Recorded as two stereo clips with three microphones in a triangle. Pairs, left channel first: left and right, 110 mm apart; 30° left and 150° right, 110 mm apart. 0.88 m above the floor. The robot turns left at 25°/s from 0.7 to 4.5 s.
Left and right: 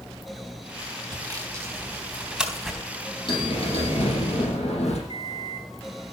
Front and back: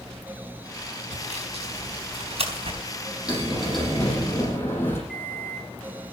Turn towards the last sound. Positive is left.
turn(degrees=125)